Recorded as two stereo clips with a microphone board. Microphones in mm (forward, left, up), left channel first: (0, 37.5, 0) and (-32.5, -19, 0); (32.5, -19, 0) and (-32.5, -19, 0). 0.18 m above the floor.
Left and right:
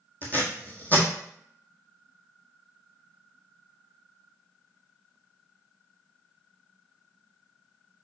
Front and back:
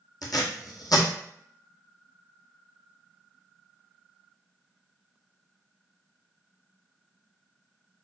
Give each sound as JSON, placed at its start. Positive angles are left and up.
{"t": 0.2, "sound": "tape being pulled", "azimuth_deg": 0, "distance_m": 1.2}